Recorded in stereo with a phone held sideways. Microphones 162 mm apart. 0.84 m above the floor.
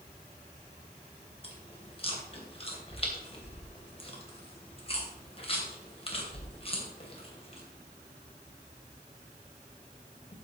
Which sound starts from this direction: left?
Chewing, at 1.4 s.